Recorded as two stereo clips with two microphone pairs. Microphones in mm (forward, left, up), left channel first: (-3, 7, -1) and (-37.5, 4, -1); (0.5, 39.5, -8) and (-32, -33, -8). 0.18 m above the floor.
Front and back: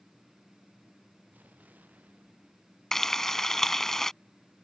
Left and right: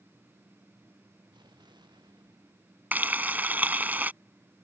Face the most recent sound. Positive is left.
turn(degrees=-65)